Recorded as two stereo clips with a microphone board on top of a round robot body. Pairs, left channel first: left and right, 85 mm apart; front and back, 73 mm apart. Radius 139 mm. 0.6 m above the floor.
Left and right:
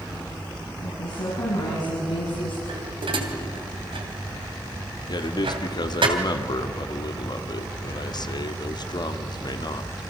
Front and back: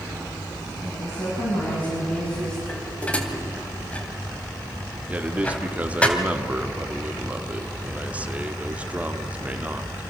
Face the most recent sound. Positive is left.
turn(degrees=110)